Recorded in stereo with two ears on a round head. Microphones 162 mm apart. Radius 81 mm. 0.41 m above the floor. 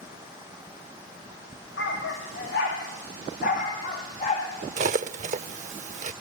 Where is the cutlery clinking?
40° right (ahead or behind), 0.7 m.